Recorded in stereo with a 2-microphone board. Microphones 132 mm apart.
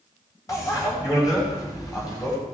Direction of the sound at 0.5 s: 25° left (ahead or behind).